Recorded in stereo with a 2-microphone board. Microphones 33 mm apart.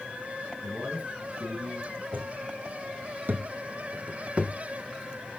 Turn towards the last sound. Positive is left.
turn(degrees=-35)  # may be behind; listen again after turning